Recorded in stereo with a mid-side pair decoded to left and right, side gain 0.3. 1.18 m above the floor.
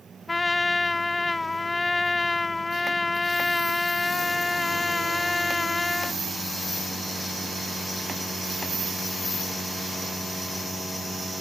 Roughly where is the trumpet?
Ahead left.